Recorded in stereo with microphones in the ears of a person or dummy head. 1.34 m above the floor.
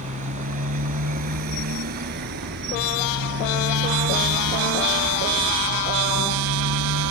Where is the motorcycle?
40° right (ahead or behind); by 7.1 s 80° right.